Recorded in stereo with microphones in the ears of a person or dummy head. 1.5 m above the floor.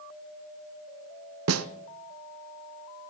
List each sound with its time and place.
1.5 s a snare drum: 85° right, 0.8 m